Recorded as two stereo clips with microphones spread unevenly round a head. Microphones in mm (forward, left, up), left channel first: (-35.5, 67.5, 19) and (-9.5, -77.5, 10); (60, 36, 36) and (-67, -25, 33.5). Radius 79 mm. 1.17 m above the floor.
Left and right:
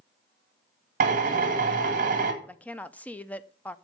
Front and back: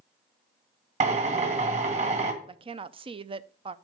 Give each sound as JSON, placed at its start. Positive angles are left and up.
{"t": 1.0, "sound": "a drill", "azimuth_deg": -110, "distance_m": 1.7}
{"t": 2.4, "sound": "a woman speaking", "azimuth_deg": 180, "distance_m": 0.6}